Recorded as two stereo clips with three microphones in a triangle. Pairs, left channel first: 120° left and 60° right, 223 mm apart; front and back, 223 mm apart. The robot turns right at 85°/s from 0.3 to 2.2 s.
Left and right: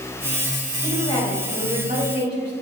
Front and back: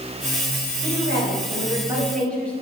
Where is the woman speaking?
160° left, 2 m; by 2.5 s 85° right, 2 m.